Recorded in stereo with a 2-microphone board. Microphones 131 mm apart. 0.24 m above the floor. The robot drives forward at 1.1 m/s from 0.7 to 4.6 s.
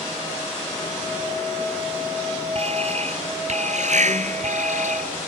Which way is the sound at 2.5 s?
55° right (ahead or behind).